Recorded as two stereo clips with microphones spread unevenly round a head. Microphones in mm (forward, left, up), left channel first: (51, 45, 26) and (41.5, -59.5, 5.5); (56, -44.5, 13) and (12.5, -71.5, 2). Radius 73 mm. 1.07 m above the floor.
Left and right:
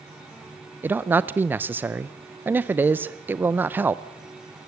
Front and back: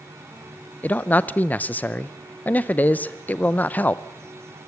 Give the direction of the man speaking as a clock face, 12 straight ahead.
1 o'clock.